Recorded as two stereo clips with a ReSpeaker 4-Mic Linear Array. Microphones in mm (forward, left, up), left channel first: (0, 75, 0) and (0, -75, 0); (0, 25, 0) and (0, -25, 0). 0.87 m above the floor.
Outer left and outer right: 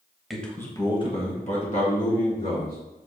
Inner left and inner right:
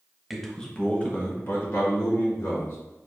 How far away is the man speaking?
About 0.9 m.